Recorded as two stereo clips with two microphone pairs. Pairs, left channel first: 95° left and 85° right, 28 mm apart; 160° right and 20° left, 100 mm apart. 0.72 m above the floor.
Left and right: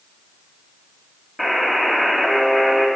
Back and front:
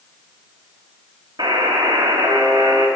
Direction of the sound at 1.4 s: 5° right.